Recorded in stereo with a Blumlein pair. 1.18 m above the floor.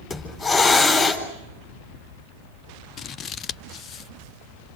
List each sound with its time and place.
0.1 s a hiss: 10° left, 4 m
3.0 s scissors: 25° left, 0.6 m